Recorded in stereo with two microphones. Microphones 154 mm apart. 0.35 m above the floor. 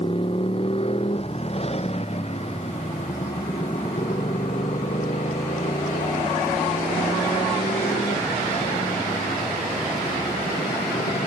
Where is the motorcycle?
40° left (ahead or behind); by 11.3 s 60° left (ahead or behind).